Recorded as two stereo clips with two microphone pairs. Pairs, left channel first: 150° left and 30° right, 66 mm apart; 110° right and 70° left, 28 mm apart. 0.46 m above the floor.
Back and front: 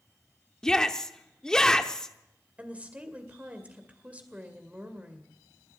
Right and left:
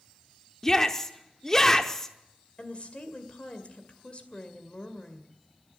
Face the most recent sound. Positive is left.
turn(degrees=-95)